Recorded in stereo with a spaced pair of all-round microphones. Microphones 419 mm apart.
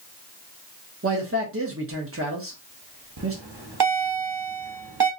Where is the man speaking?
30° right (ahead or behind), 1.0 m.